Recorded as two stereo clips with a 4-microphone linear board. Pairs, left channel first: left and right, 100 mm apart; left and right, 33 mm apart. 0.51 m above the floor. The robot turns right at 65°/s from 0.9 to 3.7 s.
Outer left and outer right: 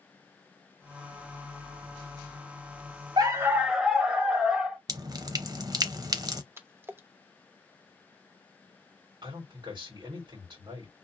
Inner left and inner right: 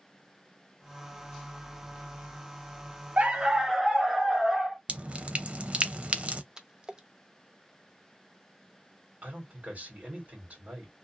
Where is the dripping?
40° right (ahead or behind), 0.6 m.